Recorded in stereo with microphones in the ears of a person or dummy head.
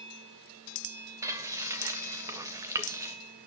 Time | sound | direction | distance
1.2 | frying | 25° right (ahead or behind) | 1.6 m